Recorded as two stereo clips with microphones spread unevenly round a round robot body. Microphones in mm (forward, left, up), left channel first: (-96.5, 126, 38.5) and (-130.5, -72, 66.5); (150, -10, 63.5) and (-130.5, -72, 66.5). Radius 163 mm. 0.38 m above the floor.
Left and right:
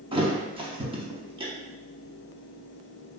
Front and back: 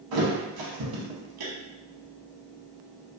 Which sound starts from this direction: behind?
A thud, at 0.1 s.